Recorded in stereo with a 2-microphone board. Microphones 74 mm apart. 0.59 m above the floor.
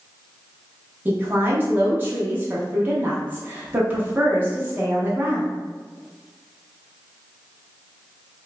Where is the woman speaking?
25° right (ahead or behind), 0.9 m.